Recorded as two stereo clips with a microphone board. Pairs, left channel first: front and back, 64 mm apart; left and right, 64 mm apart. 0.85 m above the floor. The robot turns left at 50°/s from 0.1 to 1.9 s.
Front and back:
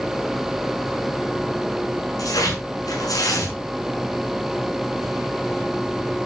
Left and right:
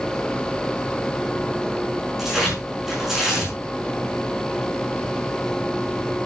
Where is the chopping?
I don't hear chopping.